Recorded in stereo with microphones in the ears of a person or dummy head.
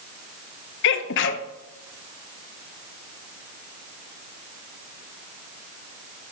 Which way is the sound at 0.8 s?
65° left (ahead or behind).